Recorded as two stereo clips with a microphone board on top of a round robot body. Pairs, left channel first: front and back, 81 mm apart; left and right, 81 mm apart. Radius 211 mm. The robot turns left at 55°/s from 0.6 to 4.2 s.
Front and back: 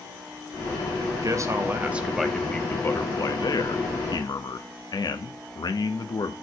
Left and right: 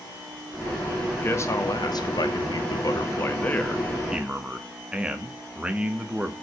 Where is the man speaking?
155° left, 1.7 m; by 6.3 s 15° right, 1.7 m.